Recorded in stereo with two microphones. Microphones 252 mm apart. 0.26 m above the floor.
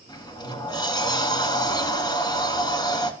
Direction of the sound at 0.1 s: 15° left (ahead or behind).